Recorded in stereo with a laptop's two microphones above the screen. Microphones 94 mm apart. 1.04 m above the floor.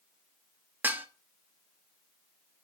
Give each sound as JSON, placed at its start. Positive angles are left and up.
{"t": 0.8, "sound": "dishes clattering", "side_deg": -20, "distance_m": 1.0}